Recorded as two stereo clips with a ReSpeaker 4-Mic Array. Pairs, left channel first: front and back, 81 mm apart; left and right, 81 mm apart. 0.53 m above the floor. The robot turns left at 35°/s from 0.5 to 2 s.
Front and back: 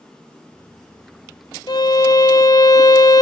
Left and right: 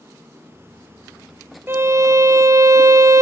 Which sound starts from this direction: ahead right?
A violin, at 1.7 s.